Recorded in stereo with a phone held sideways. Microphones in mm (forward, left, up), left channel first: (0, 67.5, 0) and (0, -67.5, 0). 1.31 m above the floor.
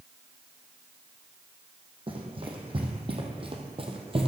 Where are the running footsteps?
40° right (ahead or behind), 2.5 m; by 4.3 s 45° right (ahead or behind), 1.9 m.